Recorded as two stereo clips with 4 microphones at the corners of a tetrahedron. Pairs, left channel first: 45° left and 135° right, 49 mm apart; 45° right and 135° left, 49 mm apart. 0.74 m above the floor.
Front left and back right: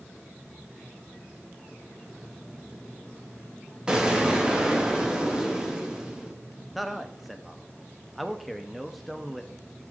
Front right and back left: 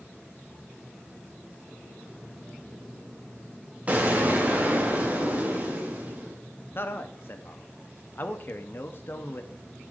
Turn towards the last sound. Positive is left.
turn(degrees=-45)